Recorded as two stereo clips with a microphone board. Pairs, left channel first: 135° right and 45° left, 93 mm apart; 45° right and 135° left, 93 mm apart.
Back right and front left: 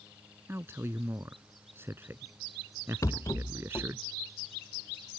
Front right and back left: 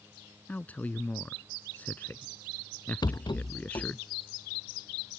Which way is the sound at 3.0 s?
85° right.